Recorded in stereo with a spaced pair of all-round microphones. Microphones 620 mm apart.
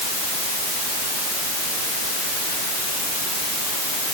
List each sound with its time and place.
Only background noise.